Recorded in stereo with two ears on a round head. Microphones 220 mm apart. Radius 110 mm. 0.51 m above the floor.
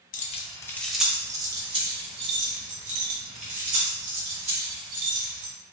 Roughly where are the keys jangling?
Left.